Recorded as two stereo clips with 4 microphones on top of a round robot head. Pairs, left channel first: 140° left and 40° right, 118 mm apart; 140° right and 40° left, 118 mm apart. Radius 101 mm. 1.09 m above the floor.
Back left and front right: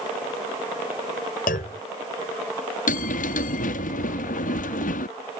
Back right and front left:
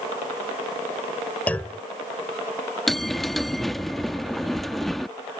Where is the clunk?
145° left.